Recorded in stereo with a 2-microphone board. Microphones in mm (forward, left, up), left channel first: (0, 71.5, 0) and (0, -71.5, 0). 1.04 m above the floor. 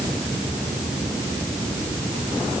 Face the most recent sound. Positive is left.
No sound to turn to.